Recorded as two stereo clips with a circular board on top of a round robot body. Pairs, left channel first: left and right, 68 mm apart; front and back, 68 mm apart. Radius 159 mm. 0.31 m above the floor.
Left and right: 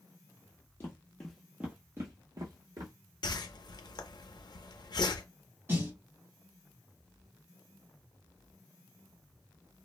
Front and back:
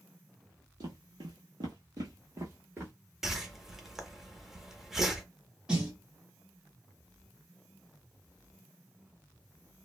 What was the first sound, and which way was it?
Footsteps, 145° left.